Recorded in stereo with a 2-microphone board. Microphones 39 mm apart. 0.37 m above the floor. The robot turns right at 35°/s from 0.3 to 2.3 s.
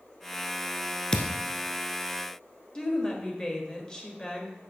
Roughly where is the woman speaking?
Centre.